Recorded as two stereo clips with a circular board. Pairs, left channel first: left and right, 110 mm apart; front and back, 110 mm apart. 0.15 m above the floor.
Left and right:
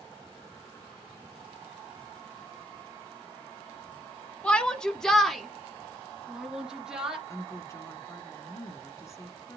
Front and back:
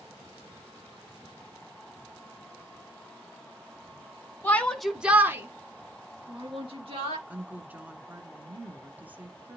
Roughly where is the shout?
Ahead left.